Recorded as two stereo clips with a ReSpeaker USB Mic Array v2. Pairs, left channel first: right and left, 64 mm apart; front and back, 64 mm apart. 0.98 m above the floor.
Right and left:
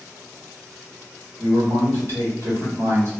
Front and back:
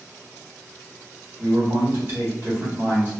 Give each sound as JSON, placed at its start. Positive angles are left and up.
{"t": 1.4, "sound": "a man speaking", "azimuth_deg": 130, "distance_m": 1.2}